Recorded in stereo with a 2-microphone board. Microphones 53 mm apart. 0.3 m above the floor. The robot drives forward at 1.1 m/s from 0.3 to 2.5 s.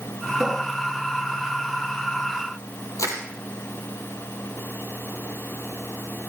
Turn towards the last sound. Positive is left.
turn(degrees=85)